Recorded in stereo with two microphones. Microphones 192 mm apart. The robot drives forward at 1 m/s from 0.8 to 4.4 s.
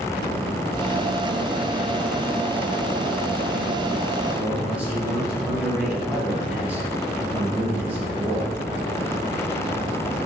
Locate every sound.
4.3 s a man speaking: 10° right (ahead or behind), 2 m